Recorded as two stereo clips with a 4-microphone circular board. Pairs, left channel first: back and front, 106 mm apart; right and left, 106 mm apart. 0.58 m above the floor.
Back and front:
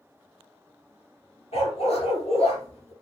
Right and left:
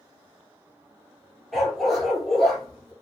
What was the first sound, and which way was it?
A dog barking, straight behind.